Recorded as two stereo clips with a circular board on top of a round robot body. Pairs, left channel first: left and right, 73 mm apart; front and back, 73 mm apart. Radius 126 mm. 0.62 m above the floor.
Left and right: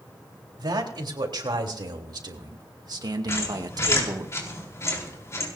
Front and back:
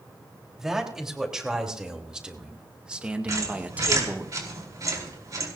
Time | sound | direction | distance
0.6 | a man speaking | 100° right | 3.5 m
3.3 | a squeak | 140° left | 4.5 m